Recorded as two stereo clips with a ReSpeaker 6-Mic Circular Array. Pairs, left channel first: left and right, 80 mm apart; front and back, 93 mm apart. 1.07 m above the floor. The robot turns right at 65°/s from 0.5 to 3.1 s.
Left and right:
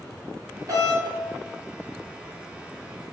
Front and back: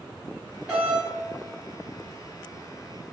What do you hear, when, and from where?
0.7 s a doorbell: 105° right, 1.5 m; by 1.0 s 85° right, 1.5 m